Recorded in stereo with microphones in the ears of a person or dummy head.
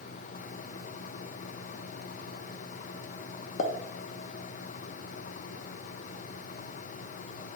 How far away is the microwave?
I don't hear a microwave.